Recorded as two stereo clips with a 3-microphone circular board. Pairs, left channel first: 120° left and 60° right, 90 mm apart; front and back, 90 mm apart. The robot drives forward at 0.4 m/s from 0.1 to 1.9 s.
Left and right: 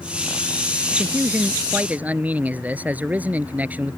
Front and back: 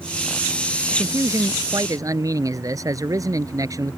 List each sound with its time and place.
0.9 s a man speaking: 125° right; by 4.0 s 130° right